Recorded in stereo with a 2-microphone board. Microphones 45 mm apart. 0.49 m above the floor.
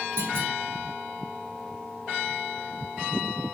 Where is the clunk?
70° right (ahead or behind), 5.5 m.